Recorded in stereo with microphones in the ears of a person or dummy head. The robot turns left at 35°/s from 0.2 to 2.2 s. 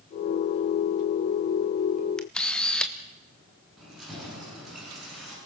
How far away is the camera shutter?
About 1.1 m.